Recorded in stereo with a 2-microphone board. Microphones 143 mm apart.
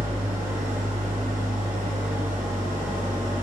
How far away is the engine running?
About 2.5 m.